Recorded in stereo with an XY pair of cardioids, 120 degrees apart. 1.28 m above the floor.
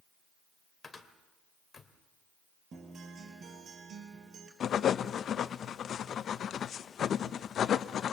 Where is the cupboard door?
25° left, 2.5 m.